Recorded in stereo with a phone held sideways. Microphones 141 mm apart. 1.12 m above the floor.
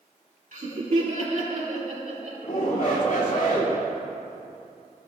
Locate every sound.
0.5 s laughter: 65° right (ahead or behind), 2.5 m; by 2.3 s 70° right (ahead or behind), 3.5 m
2.4 s a shout: 70° left (ahead or behind), 2.5 m